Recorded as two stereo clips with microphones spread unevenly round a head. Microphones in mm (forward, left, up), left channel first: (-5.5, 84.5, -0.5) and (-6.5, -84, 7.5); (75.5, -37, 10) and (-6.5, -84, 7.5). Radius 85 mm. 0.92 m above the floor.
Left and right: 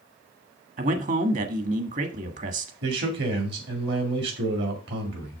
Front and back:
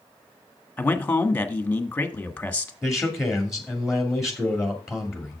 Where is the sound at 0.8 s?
45° right, 1.5 m.